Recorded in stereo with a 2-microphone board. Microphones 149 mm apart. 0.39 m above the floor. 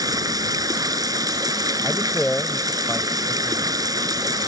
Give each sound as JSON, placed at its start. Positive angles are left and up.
{"t": 0.0, "sound": "running water", "side_deg": -25}
{"t": 1.8, "sound": "a man speaking", "side_deg": 5}